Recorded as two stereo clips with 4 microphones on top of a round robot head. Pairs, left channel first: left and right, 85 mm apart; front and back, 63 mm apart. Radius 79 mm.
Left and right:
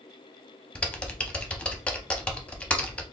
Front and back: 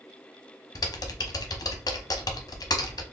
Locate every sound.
0.8 s typing on a keyboard: 10° left, 0.6 m